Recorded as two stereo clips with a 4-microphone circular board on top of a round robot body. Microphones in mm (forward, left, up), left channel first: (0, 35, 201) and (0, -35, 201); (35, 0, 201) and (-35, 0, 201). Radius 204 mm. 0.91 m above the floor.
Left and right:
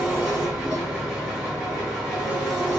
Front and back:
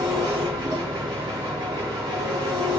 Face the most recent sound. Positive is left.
turn(degrees=-170)